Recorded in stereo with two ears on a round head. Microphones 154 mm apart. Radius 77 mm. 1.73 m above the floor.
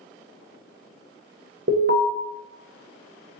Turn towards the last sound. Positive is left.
turn(degrees=-65)  # may be behind; listen again after turning